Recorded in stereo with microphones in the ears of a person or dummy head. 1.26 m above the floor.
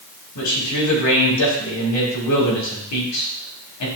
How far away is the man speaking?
About 1.7 m.